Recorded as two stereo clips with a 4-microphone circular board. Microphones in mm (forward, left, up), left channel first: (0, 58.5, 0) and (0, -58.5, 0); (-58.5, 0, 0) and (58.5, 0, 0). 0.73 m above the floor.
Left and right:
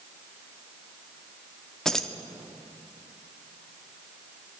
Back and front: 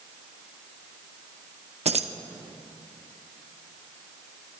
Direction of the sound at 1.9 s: 5° left.